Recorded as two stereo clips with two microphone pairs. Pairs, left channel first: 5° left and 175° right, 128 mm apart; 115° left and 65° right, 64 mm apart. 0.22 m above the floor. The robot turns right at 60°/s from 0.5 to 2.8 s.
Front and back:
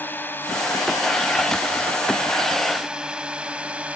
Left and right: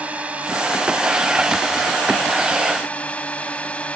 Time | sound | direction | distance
0.0 | a drone | 45° right | ?